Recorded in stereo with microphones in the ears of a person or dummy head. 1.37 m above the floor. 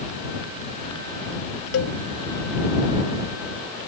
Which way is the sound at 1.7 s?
80° left.